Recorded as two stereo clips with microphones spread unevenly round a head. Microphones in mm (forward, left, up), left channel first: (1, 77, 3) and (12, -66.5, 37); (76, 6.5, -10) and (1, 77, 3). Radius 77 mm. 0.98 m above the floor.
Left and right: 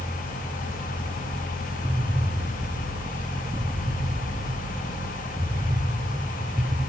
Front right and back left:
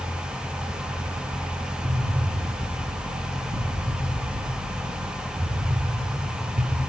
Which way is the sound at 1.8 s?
170° right.